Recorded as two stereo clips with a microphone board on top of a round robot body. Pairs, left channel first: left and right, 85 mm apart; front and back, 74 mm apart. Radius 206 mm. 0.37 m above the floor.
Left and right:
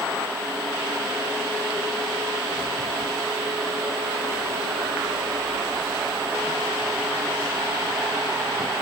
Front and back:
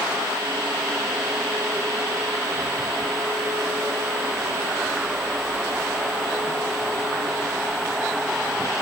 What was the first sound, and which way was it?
Only background noise.